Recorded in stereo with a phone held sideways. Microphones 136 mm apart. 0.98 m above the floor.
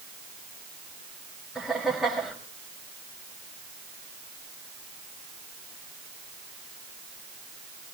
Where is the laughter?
Centre (ahead or behind), 5.5 m.